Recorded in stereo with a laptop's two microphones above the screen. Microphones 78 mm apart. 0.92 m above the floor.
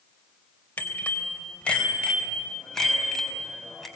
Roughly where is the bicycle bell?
Left.